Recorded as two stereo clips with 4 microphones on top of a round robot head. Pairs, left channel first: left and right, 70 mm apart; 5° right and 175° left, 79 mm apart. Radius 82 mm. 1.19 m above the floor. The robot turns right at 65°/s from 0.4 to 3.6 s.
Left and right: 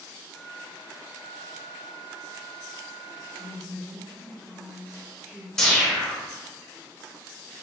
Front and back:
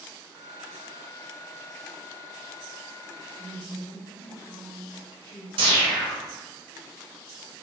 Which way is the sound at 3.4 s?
45° right.